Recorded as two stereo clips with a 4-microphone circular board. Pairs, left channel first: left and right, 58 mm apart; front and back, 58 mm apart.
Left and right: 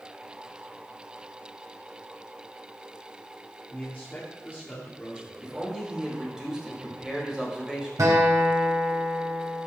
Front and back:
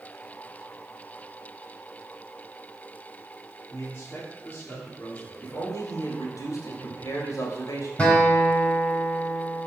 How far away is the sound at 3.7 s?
About 2 m.